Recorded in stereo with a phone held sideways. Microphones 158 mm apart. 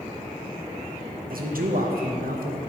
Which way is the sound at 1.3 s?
80° right.